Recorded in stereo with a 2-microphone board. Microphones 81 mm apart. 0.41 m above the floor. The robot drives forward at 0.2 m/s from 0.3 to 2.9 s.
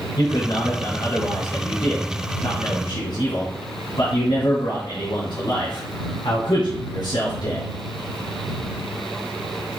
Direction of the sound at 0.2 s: 70° left (ahead or behind).